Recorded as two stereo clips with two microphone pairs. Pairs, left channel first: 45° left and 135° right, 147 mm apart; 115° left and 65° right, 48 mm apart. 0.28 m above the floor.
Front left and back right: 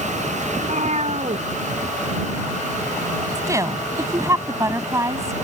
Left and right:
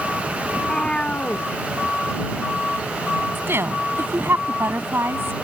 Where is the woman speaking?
70° right.